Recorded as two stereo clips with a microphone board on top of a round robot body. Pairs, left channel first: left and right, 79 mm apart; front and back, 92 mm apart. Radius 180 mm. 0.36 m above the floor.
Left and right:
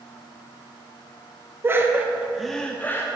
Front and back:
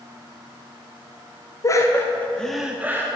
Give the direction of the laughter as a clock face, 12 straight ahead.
1 o'clock.